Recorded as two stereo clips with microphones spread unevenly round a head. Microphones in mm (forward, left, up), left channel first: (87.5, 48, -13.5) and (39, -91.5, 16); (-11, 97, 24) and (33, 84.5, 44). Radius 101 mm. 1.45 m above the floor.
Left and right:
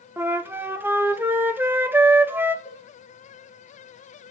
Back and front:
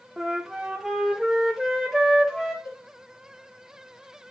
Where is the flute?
60° right, 0.7 m.